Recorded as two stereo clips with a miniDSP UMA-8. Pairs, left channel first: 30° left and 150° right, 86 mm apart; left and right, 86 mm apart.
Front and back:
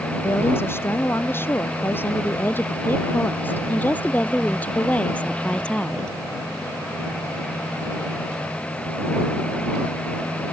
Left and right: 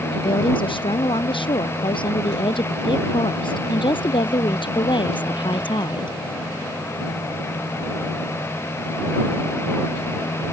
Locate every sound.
0.1 s a woman speaking: 90° left; by 6.2 s 110° left